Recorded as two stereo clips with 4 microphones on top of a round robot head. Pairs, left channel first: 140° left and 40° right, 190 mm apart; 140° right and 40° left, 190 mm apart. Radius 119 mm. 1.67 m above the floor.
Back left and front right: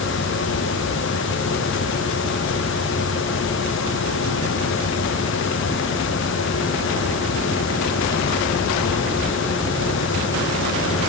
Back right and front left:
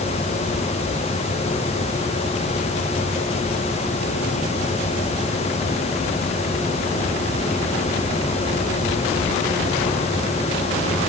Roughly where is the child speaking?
No child speaking in this recording.